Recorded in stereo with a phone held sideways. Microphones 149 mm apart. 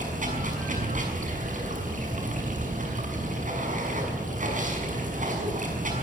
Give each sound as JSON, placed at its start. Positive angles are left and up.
{"t": 0.0, "sound": "running water", "side_deg": -60, "distance_m": 6.0}